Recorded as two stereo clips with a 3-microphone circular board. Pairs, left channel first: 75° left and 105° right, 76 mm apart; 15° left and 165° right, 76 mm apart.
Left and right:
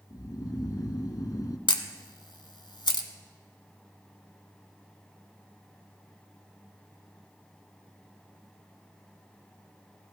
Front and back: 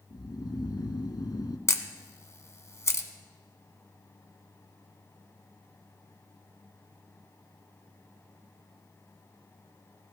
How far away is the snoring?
About 0.8 m.